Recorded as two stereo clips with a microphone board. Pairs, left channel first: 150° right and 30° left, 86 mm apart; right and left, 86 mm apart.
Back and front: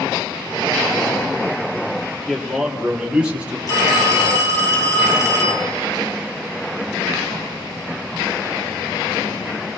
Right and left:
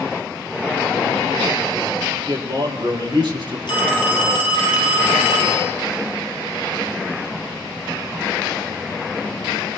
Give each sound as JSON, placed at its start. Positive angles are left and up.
{"t": 2.3, "sound": "a man speaking", "azimuth_deg": 125, "distance_m": 4.0}
{"t": 3.7, "sound": "a phone ringing", "azimuth_deg": -105, "distance_m": 4.0}